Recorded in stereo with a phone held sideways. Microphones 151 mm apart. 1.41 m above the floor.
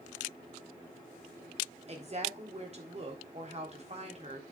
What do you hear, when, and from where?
1.9 s a woman speaking: 45° right (ahead or behind), 3.5 m